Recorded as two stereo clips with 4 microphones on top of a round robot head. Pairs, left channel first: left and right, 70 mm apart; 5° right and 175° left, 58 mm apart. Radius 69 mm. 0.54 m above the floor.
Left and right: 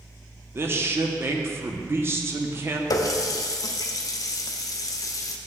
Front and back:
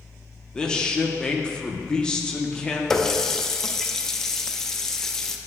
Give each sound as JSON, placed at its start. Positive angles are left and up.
{"t": 0.6, "sound": "a man speaking", "azimuth_deg": -70, "distance_m": 0.7}
{"t": 2.9, "sound": "a running tap", "azimuth_deg": 75, "distance_m": 0.6}